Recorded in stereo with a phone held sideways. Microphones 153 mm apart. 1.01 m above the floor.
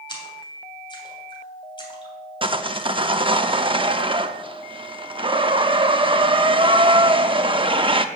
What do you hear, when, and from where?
0.1 s a splash: 30° left (ahead or behind), 3 m
2.4 s sawing: 35° right (ahead or behind), 0.7 m